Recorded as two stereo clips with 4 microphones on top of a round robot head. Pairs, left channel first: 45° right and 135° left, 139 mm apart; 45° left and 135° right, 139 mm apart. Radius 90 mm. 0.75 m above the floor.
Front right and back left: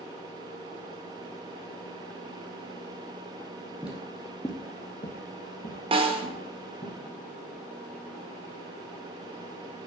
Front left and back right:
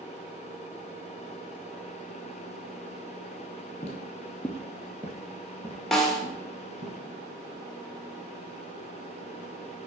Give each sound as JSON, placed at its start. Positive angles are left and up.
{"t": 3.8, "sound": "footsteps", "azimuth_deg": 60, "distance_m": 0.9}
{"t": 5.9, "sound": "a snare drum", "azimuth_deg": 130, "distance_m": 1.3}